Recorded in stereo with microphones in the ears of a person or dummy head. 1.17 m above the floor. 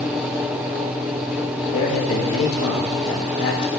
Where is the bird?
I don't hear a bird.